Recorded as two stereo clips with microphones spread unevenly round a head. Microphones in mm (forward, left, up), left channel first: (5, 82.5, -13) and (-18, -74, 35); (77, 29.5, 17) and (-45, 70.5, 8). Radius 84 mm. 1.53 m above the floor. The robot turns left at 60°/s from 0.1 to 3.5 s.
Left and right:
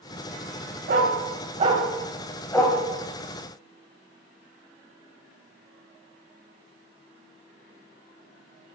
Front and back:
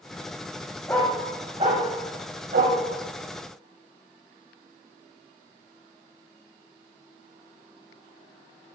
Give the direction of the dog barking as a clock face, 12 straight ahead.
3 o'clock.